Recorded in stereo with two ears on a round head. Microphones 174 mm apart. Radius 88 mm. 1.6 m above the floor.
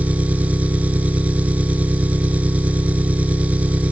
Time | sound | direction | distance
0.0 | an engine running | 10° right (ahead or behind) | ?